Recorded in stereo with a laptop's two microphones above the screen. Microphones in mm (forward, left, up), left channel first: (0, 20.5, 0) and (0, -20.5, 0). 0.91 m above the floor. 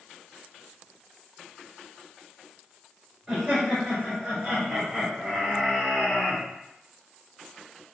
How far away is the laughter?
About 1.6 m.